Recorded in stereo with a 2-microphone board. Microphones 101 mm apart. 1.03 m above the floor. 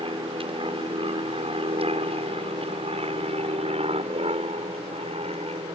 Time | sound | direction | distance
0.0 | an aircraft | 60° right (ahead or behind) | ?